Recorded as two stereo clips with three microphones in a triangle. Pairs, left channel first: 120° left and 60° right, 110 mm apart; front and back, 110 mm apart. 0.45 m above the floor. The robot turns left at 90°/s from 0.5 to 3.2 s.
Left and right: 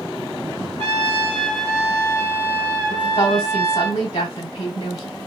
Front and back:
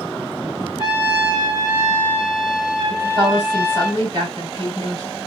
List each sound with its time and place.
0.8 s a trumpet: 40° right, 3 m; by 3.9 s 100° left, 3 m
2.9 s a woman speaking: 165° left, 3 m; by 5.2 s 140° left, 3 m